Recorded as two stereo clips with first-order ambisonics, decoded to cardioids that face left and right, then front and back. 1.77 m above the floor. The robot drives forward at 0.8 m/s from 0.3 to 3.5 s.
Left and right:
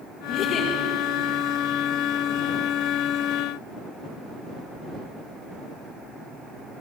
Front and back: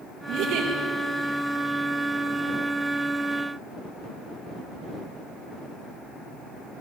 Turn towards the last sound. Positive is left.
turn(degrees=155)